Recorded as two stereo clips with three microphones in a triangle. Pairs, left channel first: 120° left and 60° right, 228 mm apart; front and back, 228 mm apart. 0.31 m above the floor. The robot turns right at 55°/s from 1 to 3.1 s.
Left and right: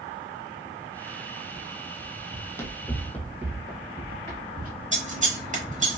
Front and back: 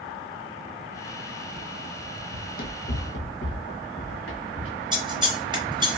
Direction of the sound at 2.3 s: 40° left.